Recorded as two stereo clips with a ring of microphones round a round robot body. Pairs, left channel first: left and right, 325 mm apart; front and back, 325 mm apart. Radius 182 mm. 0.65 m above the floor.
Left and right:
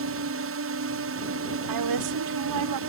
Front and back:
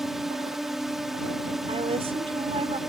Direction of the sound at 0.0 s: 90° right.